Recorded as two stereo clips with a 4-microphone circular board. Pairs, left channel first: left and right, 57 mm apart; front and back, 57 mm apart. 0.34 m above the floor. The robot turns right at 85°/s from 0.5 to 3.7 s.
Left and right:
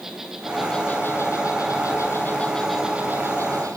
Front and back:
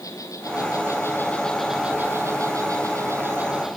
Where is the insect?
5° right, 3 m; by 3.8 s 95° right, 3 m.